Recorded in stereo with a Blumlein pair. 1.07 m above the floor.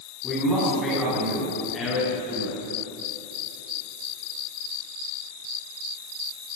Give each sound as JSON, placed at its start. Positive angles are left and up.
{"t": 0.2, "sound": "a man speaking", "azimuth_deg": 10, "distance_m": 8.5}